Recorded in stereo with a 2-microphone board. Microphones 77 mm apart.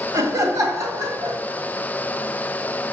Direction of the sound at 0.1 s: 45° right (ahead or behind).